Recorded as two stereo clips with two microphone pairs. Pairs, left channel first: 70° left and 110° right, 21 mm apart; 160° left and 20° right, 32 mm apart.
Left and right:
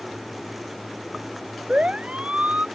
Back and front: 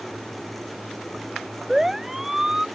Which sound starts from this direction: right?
A siren, at 1.7 s.